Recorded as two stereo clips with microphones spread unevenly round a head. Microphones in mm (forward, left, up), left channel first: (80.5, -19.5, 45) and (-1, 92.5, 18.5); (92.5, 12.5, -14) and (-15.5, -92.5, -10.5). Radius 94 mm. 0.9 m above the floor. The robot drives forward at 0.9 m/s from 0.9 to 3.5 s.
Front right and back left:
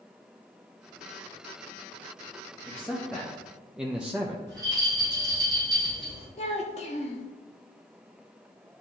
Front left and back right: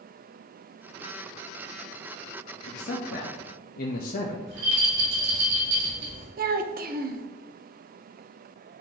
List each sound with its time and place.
2.7 s a man speaking: 20° left, 1.3 m; by 4.4 s 50° left, 0.7 m
4.5 s a rattle: 165° right, 2.5 m
6.4 s a child speaking: 110° right, 0.8 m